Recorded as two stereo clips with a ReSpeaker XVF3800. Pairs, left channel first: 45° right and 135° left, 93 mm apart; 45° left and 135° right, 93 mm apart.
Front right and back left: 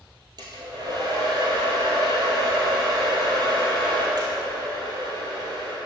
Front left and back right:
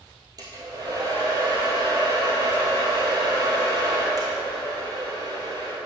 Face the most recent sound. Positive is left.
turn(degrees=175)